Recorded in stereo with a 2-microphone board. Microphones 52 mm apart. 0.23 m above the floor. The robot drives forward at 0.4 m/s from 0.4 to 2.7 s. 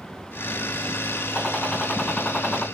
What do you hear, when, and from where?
1.4 s a gunshot: 10° left (ahead or behind), 2 m